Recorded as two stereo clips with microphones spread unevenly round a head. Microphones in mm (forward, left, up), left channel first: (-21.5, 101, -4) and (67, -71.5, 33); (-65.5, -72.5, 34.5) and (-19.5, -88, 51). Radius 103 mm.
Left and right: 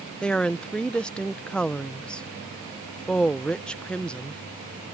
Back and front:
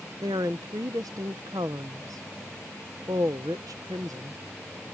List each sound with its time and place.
0.2 s a woman speaking: 30° left